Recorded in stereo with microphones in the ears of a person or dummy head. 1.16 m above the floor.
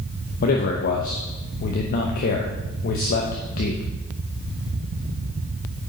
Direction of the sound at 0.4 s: 50° left (ahead or behind).